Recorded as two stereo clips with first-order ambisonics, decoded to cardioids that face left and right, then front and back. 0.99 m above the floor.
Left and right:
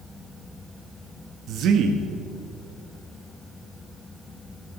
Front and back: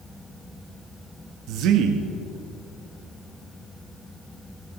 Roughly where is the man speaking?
Behind right.